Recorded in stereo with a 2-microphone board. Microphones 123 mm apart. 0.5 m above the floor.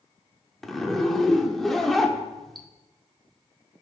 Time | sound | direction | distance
0.6 | a zipper | centre (ahead or behind) | 0.7 m